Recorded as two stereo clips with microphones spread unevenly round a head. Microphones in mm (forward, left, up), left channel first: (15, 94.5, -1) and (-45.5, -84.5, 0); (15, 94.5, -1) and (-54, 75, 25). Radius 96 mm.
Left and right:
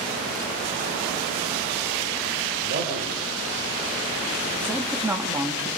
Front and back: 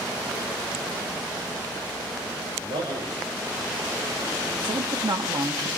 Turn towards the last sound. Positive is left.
turn(degrees=170)